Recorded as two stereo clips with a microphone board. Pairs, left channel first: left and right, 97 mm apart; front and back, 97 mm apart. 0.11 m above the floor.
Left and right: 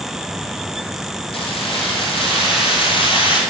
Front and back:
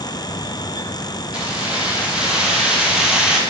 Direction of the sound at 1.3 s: 100° left.